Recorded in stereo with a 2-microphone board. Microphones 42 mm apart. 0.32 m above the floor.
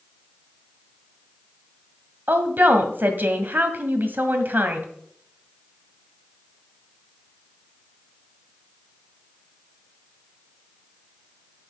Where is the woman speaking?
50° right (ahead or behind), 1.5 m.